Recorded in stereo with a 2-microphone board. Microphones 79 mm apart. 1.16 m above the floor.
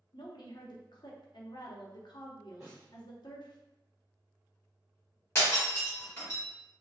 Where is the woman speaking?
65° left (ahead or behind), 0.7 m.